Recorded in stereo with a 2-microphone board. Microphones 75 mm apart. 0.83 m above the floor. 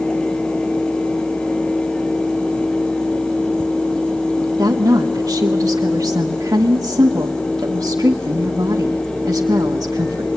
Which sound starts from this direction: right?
A woman speaking, at 4.6 s.